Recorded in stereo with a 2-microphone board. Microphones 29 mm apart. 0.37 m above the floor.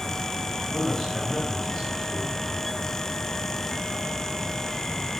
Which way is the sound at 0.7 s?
15° left (ahead or behind).